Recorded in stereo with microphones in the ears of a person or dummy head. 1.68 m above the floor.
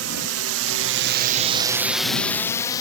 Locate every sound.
0.0 s a drone: 75° right (ahead or behind); by 2.8 s 20° left (ahead or behind)